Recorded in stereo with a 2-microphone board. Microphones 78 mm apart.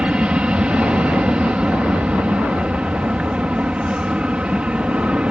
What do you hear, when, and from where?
0.0 s an aircraft: 15° right (ahead or behind)